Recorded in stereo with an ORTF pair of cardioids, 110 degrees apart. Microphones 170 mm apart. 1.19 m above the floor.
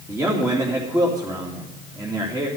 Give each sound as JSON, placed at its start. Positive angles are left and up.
{"t": 0.1, "sound": "a man speaking", "azimuth_deg": -20, "distance_m": 2.5}